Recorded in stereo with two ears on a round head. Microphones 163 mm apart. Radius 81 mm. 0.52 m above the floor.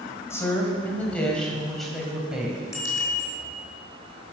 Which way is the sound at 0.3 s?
15° left (ahead or behind).